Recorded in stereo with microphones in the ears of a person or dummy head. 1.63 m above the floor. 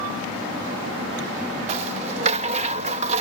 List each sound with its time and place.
1.7 s a rattle: 40° right (ahead or behind)